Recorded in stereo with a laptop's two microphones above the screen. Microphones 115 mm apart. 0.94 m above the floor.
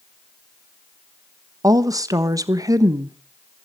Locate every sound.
1.6 s a woman speaking: 30° right (ahead or behind), 1.2 m